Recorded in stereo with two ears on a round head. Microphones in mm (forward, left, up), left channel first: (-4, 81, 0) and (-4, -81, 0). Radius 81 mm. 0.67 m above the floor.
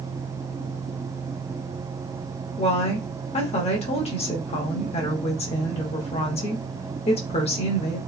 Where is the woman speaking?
35° left (ahead or behind), 0.9 m.